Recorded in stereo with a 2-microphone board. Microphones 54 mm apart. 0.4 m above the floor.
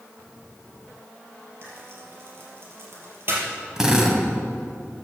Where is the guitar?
No guitar in this recording.